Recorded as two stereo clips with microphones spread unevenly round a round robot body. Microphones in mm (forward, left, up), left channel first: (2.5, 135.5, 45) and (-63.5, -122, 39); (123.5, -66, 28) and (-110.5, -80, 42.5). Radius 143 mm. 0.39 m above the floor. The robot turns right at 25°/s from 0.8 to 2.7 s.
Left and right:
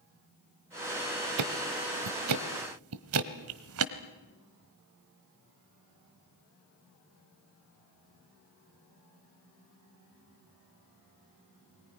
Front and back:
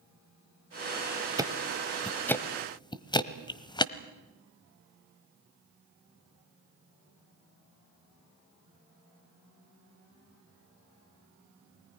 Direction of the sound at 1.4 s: 100° right.